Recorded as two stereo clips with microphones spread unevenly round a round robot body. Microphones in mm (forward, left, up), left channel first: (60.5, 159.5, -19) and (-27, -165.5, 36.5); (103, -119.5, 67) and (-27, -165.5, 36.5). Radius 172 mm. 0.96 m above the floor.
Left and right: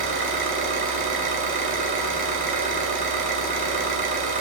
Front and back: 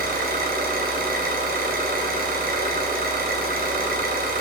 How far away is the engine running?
About 2.5 m.